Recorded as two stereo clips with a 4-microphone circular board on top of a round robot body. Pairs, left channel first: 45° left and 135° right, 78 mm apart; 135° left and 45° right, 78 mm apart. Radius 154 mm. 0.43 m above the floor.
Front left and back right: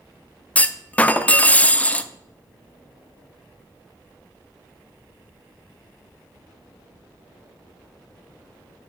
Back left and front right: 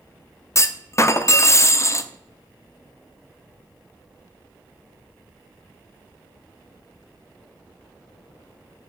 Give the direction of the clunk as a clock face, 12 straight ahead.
8 o'clock.